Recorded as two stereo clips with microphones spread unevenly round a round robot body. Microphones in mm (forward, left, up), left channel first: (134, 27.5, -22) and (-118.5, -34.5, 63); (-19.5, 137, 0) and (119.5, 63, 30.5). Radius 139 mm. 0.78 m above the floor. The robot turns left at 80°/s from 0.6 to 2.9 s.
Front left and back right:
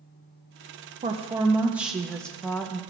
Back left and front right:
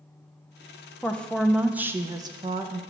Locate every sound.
1.0 s a woman speaking: 125° left, 0.6 m; by 2.8 s 15° right, 0.6 m